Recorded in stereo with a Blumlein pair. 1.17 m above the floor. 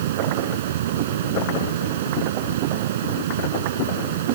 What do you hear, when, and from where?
0.0 s a fan: 55° right